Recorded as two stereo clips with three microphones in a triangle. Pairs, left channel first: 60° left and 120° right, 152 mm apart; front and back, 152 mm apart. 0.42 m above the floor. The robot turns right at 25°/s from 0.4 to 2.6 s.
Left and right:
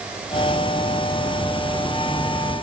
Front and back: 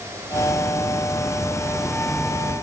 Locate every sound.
Only background noise.